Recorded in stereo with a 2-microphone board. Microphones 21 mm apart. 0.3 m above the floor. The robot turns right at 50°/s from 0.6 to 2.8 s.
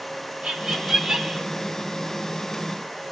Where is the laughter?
65° right, 1.4 m; by 1.4 s 20° right, 1.4 m.